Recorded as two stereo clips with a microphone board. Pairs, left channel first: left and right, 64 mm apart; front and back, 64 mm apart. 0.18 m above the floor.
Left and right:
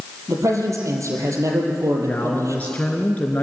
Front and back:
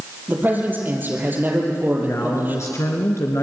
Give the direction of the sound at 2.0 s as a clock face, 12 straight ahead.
11 o'clock.